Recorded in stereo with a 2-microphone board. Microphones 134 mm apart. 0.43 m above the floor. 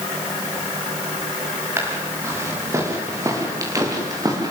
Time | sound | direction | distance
1.8 | footsteps | 20° right (ahead or behind) | 7.5 m